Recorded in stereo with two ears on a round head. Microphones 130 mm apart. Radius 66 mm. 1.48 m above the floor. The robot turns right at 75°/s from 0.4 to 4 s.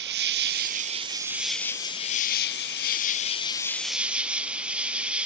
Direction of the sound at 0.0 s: 80° right.